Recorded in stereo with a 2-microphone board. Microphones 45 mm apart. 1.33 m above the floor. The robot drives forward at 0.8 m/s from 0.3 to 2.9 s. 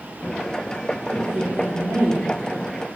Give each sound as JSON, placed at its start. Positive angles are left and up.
{"t": 1.1, "sound": "a woman speaking", "side_deg": -55, "distance_m": 1.3}